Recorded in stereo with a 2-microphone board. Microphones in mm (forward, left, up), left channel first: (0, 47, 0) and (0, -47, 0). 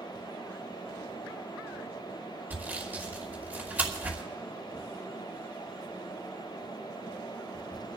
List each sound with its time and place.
2.5 s sawing: 20° right (ahead or behind), 1.8 m